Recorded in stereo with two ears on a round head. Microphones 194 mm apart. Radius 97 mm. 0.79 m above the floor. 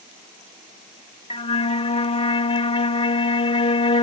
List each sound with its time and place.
1.3 s a flute: 30° left (ahead or behind)